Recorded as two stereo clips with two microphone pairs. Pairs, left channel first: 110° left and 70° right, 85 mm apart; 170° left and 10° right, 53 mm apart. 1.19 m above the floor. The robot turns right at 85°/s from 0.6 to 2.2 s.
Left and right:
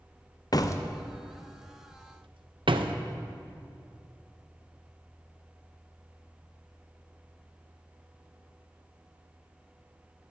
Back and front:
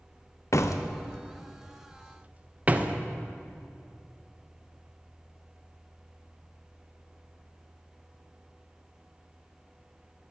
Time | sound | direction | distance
0.5 | a door slam | 150° left | 0.8 m